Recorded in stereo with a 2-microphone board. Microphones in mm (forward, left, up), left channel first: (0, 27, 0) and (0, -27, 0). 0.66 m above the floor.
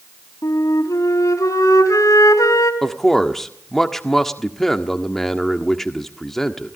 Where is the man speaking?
5° left (ahead or behind), 1.5 m.